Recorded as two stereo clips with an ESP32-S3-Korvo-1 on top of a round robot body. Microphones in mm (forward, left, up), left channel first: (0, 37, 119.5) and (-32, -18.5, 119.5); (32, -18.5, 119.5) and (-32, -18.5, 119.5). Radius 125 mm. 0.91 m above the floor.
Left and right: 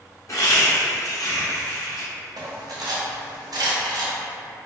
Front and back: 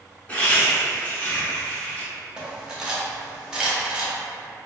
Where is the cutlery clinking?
100° right, 0.8 m.